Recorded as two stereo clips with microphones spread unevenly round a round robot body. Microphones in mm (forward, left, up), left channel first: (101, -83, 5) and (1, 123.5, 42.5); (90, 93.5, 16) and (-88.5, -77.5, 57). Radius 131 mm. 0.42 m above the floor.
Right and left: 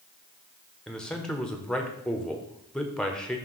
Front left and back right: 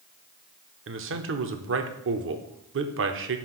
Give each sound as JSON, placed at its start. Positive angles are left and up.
{"t": 0.9, "sound": "a man speaking", "azimuth_deg": -140, "distance_m": 0.9}